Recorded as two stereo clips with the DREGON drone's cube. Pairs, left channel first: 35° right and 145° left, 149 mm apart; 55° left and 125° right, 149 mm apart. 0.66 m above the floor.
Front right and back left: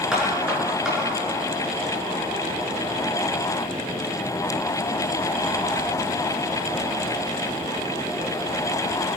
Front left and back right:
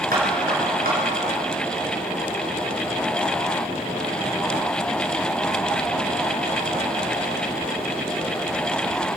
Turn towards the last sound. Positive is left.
turn(degrees=-130)